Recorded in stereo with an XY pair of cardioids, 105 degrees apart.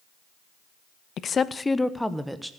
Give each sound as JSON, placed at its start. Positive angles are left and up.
{"t": 1.2, "sound": "a woman speaking", "azimuth_deg": 55, "distance_m": 0.7}